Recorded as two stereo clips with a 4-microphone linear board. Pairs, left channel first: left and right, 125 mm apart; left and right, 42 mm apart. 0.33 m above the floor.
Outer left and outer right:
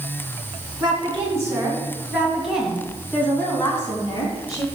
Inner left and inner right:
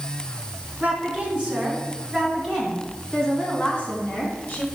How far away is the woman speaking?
About 3 m.